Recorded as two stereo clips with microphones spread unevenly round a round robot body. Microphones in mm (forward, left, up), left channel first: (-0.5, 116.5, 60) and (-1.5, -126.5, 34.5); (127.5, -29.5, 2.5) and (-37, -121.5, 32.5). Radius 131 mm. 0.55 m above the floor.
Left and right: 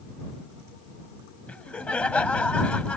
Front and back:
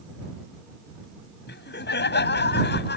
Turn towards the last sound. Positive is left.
turn(degrees=5)